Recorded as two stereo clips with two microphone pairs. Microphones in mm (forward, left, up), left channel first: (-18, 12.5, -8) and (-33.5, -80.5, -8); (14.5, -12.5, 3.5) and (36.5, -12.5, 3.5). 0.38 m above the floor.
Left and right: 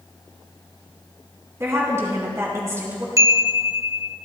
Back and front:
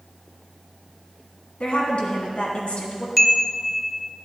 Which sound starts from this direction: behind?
A woman speaking, at 1.6 s.